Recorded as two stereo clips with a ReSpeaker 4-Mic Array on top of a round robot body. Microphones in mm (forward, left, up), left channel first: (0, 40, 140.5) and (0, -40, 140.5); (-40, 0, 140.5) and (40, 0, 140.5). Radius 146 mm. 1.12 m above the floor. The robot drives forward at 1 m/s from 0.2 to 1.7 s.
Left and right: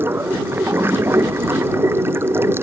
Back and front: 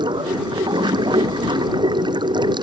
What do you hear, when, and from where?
0.0 s running water: 25° right; by 2.6 s 30° right